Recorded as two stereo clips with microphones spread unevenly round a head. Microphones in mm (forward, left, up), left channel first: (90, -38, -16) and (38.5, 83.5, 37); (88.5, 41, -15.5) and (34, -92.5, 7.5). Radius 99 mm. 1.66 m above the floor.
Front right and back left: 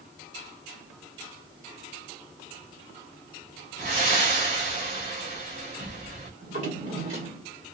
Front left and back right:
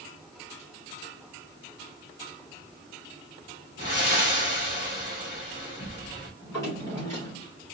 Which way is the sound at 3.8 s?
130° left.